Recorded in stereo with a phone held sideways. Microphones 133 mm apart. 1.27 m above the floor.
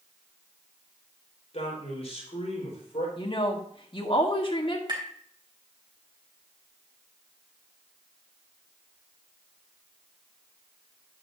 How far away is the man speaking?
About 4.5 m.